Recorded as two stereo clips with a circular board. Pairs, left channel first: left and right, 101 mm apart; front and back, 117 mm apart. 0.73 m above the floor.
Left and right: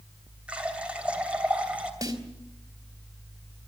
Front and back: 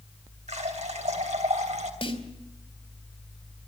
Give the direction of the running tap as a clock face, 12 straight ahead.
6 o'clock.